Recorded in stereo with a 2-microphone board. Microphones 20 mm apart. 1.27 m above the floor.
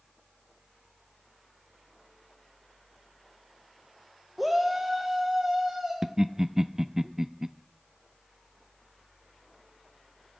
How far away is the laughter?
About 0.5 m.